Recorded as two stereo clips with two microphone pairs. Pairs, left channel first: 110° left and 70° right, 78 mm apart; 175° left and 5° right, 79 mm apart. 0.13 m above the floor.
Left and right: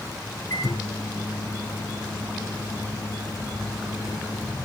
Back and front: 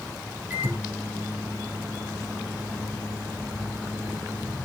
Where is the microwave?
65° left, 3.5 m.